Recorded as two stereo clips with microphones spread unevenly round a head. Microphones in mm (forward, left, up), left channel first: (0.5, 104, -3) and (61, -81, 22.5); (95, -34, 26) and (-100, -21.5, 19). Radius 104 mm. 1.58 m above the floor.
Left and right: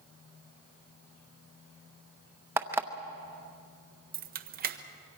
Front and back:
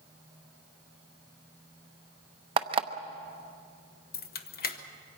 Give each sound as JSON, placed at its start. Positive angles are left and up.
{"t": 2.6, "sound": "an alarm clock", "azimuth_deg": -130, "distance_m": 0.8}
{"t": 4.1, "sound": "keys jangling", "azimuth_deg": -40, "distance_m": 1.1}